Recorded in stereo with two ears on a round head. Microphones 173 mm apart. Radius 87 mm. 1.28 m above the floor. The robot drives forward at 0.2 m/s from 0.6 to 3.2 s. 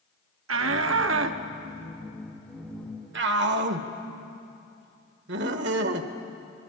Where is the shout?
75° right (ahead or behind), 1.4 m; by 6.1 s 65° right (ahead or behind), 1.5 m.